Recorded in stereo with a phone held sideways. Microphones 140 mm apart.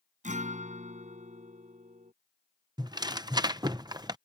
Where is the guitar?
65° right (ahead or behind).